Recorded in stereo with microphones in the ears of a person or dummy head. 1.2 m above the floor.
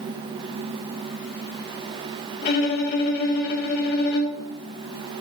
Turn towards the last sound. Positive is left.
turn(degrees=50)  # may be behind; listen again after turning